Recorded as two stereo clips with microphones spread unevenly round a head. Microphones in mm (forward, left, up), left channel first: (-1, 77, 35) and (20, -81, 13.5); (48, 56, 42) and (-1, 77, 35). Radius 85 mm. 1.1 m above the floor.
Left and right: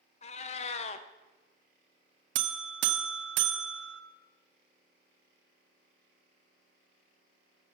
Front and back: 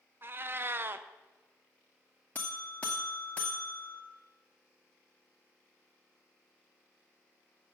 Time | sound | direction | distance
0.2 | a cat meowing | 120° left | 0.6 m
2.4 | a buzzer | 100° right | 0.8 m